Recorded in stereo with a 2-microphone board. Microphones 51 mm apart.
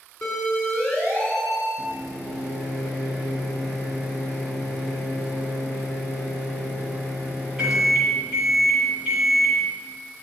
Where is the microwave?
20° right (ahead or behind), 4.5 m.